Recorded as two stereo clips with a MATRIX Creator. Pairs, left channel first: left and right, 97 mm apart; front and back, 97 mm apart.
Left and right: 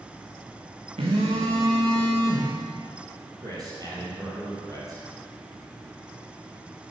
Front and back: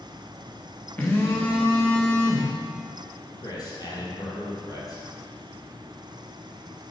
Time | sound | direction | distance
1.0 | a phone buzzing | 75° right | 2.5 m
3.4 | a man speaking | 45° right | 3.5 m